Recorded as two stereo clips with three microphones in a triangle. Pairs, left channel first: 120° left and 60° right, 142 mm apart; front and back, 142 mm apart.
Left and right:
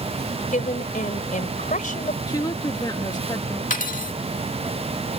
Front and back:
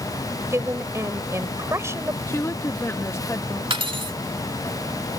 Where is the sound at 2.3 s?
65° left.